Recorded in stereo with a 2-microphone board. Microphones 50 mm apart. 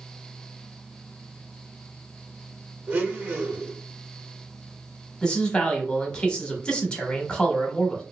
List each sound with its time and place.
2.9 s a blender: 35° right (ahead or behind), 0.9 m
5.2 s a man speaking: 15° left (ahead or behind), 0.8 m